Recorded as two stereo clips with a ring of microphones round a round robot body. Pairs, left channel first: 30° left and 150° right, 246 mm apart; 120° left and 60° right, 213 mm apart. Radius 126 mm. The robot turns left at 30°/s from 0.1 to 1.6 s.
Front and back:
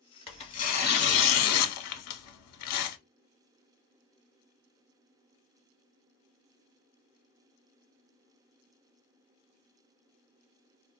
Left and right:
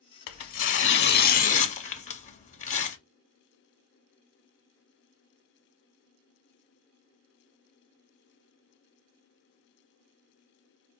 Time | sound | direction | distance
0.3 | tearing paper | 100° left | 0.5 m